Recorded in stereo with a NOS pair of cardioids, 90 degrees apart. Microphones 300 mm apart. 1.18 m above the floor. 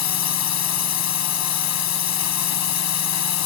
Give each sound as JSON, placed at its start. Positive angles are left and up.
{"t": 0.0, "sound": "a drone", "azimuth_deg": 65}